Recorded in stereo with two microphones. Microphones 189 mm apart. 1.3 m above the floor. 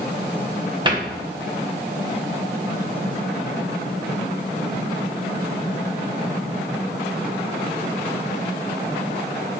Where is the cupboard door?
25° right (ahead or behind), 1.2 m.